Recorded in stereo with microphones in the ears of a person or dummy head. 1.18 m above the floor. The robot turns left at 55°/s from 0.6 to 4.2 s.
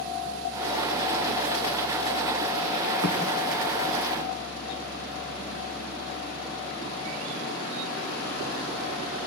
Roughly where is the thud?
Centre.